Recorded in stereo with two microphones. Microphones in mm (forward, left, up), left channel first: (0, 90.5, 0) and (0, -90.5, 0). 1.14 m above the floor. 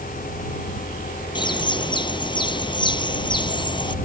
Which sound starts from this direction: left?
A bird, at 1.4 s.